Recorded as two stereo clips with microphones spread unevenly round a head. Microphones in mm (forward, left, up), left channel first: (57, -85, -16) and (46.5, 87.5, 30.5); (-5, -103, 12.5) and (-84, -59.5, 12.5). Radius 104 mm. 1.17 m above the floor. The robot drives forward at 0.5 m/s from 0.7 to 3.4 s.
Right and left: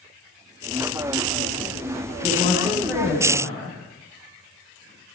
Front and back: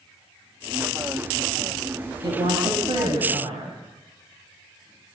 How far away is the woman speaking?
About 6.5 m.